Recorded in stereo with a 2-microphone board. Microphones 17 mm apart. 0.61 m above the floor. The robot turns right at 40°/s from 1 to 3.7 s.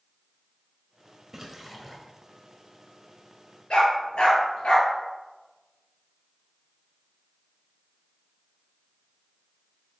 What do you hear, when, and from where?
1.3 s a splash: 25° right (ahead or behind), 2.0 m; by 2.0 s centre (ahead or behind), 2.0 m
3.7 s a dog barking: 80° left, 4.5 m